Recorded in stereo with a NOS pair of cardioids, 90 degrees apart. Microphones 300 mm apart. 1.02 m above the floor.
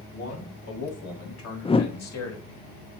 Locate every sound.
0.1 s a man speaking: 55° left, 5.5 m; by 2.6 s 60° left, 3.5 m
1.6 s a whoosh: 20° left, 0.6 m